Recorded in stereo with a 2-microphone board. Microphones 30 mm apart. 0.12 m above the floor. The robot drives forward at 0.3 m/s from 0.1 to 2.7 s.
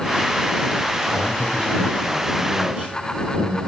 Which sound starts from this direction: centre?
A man speaking, at 1.1 s.